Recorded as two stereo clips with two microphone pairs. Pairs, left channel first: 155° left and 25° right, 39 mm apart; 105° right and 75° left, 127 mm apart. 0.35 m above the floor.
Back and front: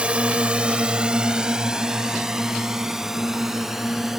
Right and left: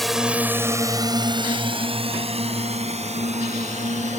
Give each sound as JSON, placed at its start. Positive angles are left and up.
{"t": 0.0, "sound": "a drone", "azimuth_deg": -15}